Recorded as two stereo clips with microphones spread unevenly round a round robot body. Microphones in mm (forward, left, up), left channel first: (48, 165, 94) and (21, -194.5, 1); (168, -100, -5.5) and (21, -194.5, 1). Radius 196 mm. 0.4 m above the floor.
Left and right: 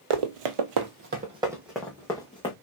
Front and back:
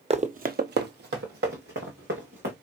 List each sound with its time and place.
0.1 s running footsteps: 95° right, 0.9 m; by 2.5 s 160° left, 1.8 m